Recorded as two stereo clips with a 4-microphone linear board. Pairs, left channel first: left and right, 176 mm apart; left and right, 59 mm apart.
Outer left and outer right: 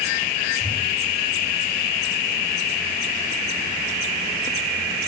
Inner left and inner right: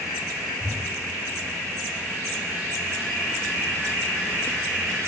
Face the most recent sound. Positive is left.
turn(degrees=15)  # may be behind; listen again after turning